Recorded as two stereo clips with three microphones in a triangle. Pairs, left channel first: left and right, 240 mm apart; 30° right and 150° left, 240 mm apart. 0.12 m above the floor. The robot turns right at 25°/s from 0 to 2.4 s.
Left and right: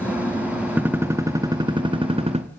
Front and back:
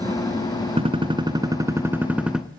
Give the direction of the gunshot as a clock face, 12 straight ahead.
6 o'clock.